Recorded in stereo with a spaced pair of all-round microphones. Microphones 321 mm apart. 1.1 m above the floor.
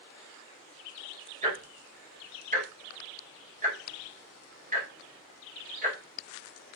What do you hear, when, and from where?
1.4 s ticking: 25° right (ahead or behind), 1.4 m